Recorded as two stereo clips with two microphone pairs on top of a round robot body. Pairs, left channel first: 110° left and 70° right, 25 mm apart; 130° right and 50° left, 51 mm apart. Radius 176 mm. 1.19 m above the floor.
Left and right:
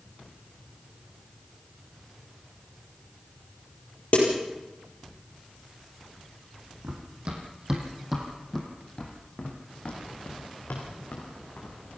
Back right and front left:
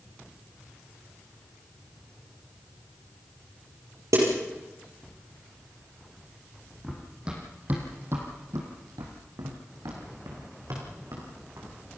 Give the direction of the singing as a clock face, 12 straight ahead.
No singing in this recording.